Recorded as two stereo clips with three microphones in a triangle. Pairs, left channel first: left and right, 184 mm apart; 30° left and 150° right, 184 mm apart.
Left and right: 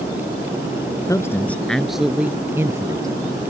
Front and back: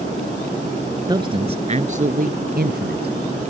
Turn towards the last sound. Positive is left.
turn(degrees=-160)